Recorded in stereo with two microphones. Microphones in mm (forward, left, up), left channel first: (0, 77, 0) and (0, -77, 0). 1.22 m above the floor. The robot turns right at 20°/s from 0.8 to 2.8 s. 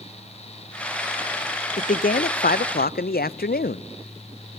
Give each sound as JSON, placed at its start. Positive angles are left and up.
{"t": 1.8, "sound": "a man speaking", "side_deg": 60, "distance_m": 0.6}